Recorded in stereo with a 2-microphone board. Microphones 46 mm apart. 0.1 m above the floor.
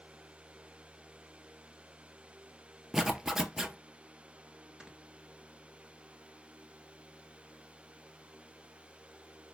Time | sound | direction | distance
2.9 | a zipper | 10° right (ahead or behind) | 0.6 m
4.8 | snoring | 20° right (ahead or behind) | 1.2 m